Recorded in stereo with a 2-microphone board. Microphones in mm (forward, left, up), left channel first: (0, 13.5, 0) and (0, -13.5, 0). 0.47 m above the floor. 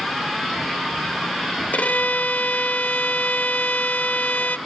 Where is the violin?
70° left (ahead or behind), 0.6 m.